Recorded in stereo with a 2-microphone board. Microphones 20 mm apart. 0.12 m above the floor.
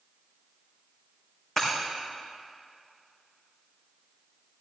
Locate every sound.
1.6 s breaking glass: 20° left (ahead or behind), 4.5 m